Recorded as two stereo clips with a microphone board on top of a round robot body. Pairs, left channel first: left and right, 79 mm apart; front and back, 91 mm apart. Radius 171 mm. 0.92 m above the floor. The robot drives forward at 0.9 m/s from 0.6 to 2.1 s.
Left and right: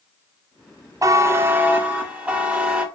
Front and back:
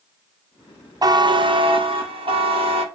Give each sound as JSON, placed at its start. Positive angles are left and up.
{"t": 1.0, "sound": "a buzzer", "azimuth_deg": -135, "distance_m": 0.7}